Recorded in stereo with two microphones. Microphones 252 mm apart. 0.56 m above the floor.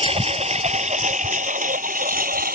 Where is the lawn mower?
25° right (ahead or behind); by 2.6 s 35° right (ahead or behind).